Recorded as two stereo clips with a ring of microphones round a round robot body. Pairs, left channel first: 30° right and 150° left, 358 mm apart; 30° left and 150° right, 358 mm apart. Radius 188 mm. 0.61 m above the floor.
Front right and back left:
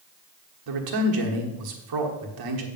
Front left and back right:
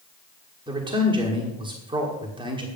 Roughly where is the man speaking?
Behind left.